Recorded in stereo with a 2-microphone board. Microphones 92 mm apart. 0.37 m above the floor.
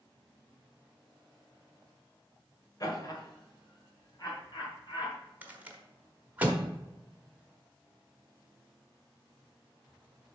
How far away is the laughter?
About 1.4 m.